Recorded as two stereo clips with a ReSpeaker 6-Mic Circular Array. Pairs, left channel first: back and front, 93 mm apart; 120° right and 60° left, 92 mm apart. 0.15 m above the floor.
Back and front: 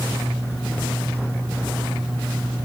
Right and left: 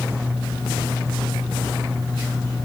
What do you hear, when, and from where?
Only background noise.